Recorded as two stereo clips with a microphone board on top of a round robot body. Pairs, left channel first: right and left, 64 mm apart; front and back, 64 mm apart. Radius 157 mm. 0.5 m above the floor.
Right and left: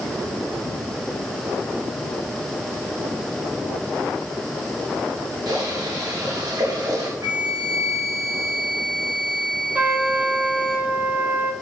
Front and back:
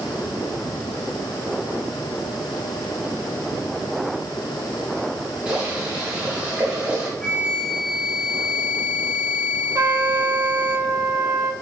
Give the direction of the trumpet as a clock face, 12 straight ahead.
7 o'clock.